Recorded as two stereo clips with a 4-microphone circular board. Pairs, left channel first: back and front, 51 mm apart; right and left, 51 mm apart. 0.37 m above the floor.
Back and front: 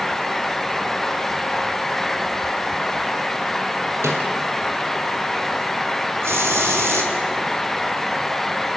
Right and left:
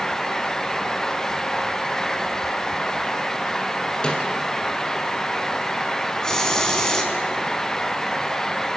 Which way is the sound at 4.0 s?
20° right.